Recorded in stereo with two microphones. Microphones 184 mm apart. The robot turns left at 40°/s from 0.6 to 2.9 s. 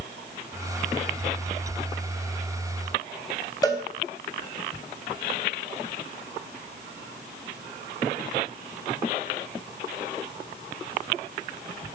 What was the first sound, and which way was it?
A cowbell, 20° left (ahead or behind).